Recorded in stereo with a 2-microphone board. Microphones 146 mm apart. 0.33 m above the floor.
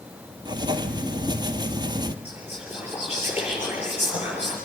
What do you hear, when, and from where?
0.5 s writing: 30° right (ahead or behind), 1.5 m
2.2 s whispering: 15° right (ahead or behind), 6.5 m